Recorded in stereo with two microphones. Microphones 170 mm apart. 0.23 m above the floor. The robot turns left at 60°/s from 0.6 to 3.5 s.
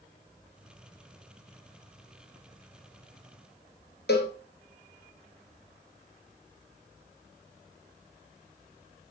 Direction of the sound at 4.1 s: 75° left (ahead or behind).